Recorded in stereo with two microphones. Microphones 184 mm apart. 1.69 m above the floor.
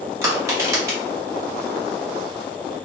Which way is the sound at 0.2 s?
15° right (ahead or behind).